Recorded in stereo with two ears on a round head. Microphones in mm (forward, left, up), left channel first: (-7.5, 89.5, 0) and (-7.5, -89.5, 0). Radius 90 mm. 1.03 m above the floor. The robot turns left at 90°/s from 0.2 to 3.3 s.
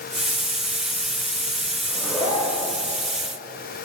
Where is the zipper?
160° right, 2.5 m; by 2.7 s 120° left, 2.5 m.